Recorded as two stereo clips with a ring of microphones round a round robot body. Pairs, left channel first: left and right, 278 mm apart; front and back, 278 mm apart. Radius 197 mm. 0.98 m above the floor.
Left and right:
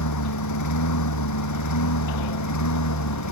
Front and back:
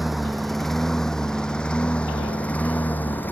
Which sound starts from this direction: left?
A lawn mower, at 0.0 s.